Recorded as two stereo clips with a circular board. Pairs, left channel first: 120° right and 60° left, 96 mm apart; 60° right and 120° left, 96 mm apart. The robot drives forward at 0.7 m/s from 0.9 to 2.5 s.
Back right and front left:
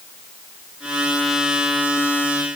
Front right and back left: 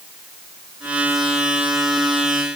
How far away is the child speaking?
No child speaking in this recording.